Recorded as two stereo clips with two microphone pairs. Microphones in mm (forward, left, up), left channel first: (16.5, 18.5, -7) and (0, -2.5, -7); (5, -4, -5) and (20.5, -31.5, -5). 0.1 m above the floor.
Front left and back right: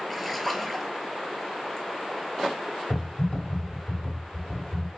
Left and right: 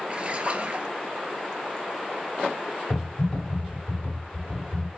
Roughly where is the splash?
Ahead right.